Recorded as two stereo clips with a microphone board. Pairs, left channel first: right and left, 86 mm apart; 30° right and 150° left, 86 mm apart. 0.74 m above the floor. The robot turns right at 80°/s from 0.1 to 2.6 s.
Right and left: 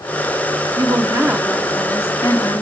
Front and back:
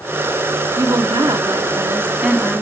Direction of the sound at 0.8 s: 115° left.